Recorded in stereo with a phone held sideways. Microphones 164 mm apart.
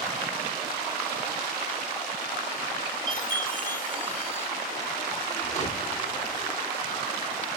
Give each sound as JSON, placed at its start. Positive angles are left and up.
{"t": 3.1, "sound": "a chime", "side_deg": 55, "distance_m": 2.5}
{"t": 5.4, "sound": "a whoosh", "side_deg": 45, "distance_m": 1.5}